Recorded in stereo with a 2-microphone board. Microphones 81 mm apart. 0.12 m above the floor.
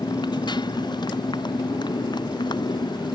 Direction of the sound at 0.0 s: 65° left (ahead or behind).